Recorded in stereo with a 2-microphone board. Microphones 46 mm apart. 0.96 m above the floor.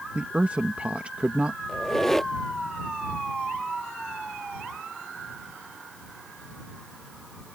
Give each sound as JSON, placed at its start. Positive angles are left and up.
{"t": 0.1, "sound": "a woman speaking", "side_deg": -30}
{"t": 1.7, "sound": "a squeak", "side_deg": 10}